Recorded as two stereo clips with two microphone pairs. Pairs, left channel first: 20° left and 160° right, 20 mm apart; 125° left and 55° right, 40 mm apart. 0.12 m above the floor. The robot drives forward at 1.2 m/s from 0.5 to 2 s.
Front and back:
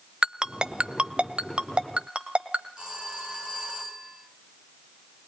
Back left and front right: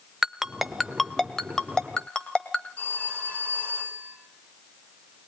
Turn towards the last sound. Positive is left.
turn(degrees=160)